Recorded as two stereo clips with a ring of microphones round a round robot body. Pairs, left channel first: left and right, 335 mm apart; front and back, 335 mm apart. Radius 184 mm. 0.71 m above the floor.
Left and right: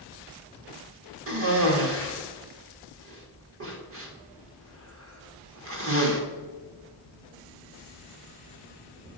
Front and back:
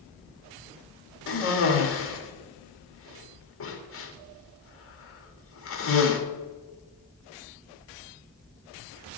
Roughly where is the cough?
Ahead right.